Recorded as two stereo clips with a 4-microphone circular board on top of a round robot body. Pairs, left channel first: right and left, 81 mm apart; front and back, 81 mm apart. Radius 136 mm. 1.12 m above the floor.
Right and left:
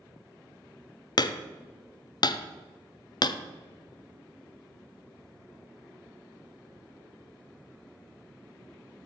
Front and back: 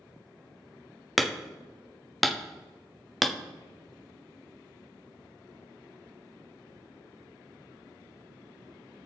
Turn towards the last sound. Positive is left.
turn(degrees=-90)